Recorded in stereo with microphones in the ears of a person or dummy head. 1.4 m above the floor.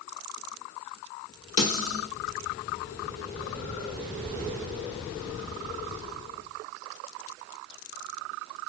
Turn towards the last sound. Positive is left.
turn(degrees=40)  # may be behind; listen again after turning